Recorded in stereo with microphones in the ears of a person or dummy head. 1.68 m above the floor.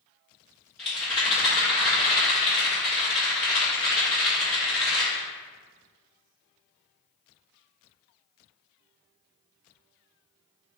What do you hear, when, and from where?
0.8 s a rattle: 5° left (ahead or behind), 1.8 m